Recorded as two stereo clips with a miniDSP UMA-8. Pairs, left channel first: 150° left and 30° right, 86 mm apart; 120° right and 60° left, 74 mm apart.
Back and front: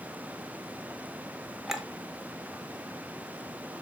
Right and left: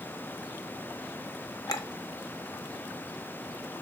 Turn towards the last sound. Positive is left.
turn(degrees=-120)